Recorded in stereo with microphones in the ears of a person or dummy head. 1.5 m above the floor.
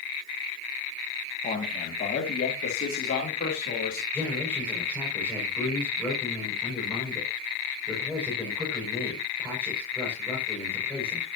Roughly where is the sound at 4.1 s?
Centre.